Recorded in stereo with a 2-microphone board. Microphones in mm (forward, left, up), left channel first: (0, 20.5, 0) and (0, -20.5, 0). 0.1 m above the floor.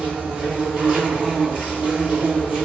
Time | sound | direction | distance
0.0 | an insect | 25° right (ahead or behind) | 1.2 m